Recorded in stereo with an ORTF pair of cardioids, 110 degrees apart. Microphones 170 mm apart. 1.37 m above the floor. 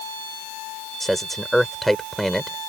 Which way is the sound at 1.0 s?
Straight ahead.